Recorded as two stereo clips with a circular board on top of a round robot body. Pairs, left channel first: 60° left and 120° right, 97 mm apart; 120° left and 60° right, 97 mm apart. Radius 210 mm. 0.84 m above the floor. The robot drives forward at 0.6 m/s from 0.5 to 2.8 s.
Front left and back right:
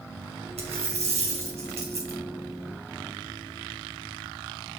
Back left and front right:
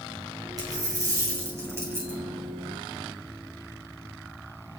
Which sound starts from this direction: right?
A dropped coin, at 0.6 s.